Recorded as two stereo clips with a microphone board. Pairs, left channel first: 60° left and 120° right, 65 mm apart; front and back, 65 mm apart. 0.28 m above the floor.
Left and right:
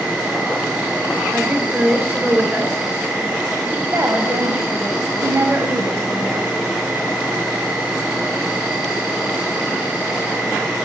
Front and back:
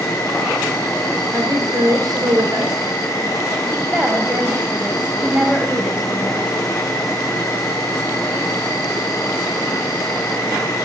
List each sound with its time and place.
0.0 s an insect: 45° right, 2.5 m
1.3 s a woman speaking: straight behind, 3.5 m
3.7 s a woman speaking: 115° right, 1.6 m